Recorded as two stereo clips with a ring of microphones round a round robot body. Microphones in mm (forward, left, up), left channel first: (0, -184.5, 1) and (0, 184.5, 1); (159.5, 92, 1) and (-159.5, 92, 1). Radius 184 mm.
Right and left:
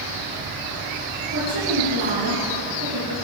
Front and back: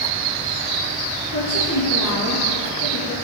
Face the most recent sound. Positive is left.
turn(degrees=40)